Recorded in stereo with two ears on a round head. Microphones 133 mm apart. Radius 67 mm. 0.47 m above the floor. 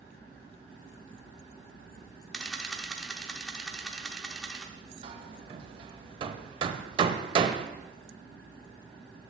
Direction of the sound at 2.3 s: Centre (ahead or behind).